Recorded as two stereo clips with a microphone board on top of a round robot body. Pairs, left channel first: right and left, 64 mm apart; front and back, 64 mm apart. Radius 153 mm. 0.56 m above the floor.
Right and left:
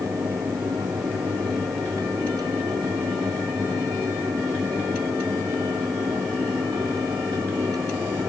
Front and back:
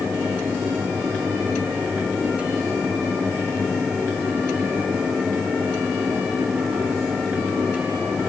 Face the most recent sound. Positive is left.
No sound to turn to.